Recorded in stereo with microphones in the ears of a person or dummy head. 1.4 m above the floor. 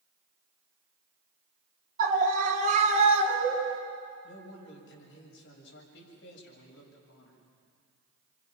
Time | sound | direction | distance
2.0 | a scream | 50° right (ahead or behind) | 3.5 m
4.2 | a man speaking | 75° left (ahead or behind) | 6.5 m